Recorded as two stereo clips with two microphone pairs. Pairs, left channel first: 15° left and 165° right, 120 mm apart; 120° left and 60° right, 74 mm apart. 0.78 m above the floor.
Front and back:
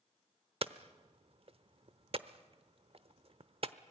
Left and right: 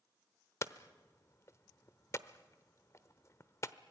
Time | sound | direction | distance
0.6 | hammering | 165° left | 0.9 m